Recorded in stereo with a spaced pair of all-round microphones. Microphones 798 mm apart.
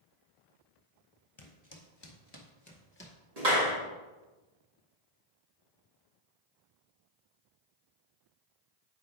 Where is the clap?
50° right (ahead or behind), 2 m.